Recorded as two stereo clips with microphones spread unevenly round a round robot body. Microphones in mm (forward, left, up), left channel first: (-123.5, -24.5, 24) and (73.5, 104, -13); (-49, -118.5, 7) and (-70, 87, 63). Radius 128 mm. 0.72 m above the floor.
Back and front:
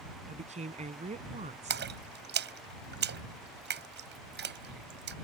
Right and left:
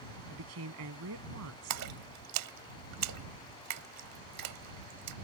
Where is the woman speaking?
95° left.